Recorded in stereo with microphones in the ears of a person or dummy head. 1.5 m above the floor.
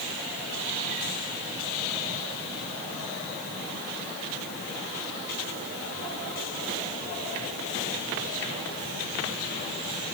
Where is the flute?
I don't hear a flute.